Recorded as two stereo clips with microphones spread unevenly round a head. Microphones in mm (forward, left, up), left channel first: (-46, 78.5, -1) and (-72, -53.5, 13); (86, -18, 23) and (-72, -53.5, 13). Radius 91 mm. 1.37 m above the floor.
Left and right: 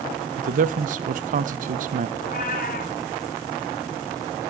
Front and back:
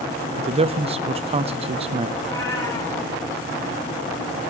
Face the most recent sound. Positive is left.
turn(degrees=85)